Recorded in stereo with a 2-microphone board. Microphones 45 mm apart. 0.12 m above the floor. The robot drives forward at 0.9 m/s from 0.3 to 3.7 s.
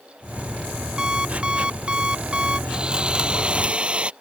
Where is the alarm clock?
20° right (ahead or behind); by 2.6 s 25° right (ahead or behind).